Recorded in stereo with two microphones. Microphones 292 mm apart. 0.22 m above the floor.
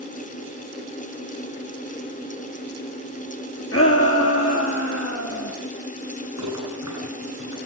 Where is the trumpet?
I don't hear a trumpet.